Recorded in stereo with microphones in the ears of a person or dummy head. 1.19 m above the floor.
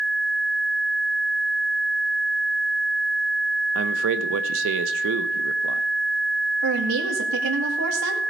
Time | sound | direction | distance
3.8 | a man speaking | 65° right (ahead or behind) | 0.8 m
6.6 | a woman speaking | 80° right | 2 m